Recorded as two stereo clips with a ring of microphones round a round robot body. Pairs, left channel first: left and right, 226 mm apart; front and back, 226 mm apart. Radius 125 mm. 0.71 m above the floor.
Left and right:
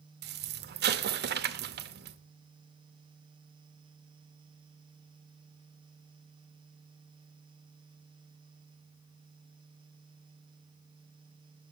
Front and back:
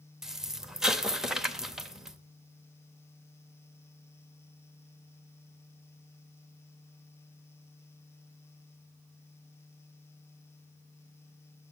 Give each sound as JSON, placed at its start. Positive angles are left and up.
{"t": 0.2, "sound": "an explosion", "azimuth_deg": -95, "distance_m": 0.8}